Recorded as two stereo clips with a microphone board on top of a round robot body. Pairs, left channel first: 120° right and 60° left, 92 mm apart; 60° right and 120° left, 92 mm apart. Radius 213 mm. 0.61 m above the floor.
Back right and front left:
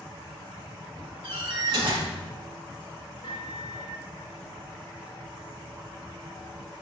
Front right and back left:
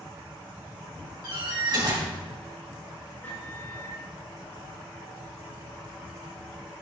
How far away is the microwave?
About 3 m.